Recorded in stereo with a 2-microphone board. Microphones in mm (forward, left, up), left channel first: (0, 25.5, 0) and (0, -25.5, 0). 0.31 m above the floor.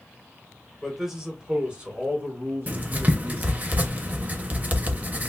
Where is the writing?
30° right (ahead or behind), 0.5 m.